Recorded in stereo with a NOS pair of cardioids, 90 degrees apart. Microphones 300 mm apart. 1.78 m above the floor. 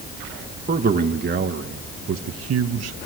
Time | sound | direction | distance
0.7 | a man speaking | 30° right | 2 m